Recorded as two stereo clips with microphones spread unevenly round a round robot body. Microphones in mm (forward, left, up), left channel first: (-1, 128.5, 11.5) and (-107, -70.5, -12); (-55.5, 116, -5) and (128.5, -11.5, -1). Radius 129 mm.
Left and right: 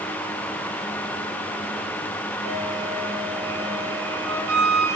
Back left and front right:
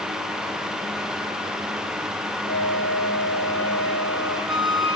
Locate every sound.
2.4 s a flute: 125° right, 8.5 m